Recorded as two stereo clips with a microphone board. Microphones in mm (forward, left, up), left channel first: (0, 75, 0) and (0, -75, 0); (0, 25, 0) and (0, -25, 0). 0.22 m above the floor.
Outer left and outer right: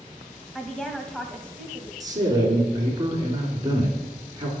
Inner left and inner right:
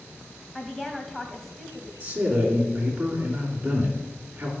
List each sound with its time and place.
0.6 s a woman speaking: 5° left (ahead or behind), 1.3 m
2.0 s a man speaking: 25° right (ahead or behind), 2.5 m